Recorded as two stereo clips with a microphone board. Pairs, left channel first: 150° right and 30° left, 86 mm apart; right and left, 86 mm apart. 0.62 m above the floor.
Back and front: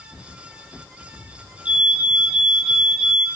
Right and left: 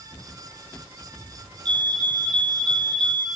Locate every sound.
1.6 s a fire alarm: 105° left, 4.5 m